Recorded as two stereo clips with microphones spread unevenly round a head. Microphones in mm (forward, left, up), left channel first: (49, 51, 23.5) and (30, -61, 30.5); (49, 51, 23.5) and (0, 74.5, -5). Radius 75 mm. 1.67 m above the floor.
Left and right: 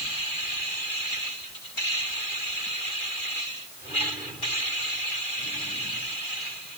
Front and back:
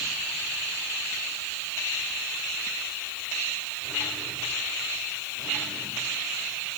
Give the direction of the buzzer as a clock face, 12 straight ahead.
No buzzer in this recording.